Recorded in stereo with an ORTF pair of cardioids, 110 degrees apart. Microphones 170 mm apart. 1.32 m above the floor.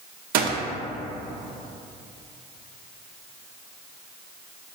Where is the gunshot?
60° right, 0.5 m.